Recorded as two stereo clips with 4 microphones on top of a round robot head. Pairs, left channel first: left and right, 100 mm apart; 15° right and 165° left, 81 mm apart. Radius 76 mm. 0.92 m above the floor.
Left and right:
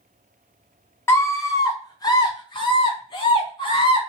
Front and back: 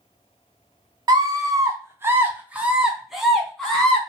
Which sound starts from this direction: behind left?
A scream, at 1.1 s.